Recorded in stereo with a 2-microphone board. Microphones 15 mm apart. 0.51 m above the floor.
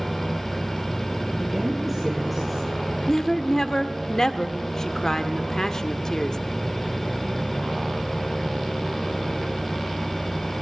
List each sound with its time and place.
1.4 s a woman speaking: centre (ahead or behind), 6 m
3.1 s a woman speaking: 30° left (ahead or behind), 1.1 m